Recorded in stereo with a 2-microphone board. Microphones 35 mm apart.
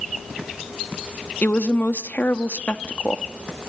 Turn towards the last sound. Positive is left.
turn(degrees=55)  # may be behind; listen again after turning